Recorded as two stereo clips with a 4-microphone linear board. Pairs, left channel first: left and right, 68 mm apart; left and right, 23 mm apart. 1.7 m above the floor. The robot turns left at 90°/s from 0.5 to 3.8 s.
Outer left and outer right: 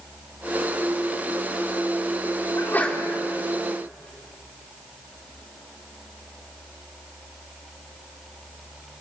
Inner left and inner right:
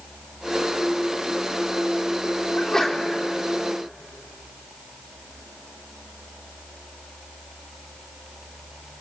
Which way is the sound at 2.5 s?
45° left.